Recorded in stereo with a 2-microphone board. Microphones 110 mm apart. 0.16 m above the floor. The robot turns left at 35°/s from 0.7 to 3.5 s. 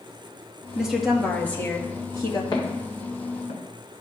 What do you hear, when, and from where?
0.8 s a woman speaking: 170° right, 3 m; by 2.4 s 130° left, 3 m
2.5 s footsteps: 40° left (ahead or behind), 4 m; by 4.0 s 85° left, 3 m